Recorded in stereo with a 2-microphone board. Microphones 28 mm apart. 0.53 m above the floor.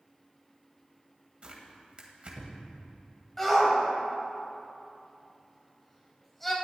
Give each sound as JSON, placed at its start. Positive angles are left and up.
{"t": 1.4, "sound": "tearing paper", "side_deg": -45, "distance_m": 1.6}
{"t": 3.4, "sound": "a shout", "side_deg": 10, "distance_m": 3.0}